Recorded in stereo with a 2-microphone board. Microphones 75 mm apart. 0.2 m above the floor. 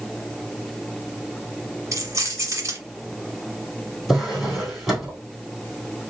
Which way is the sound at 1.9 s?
45° right (ahead or behind).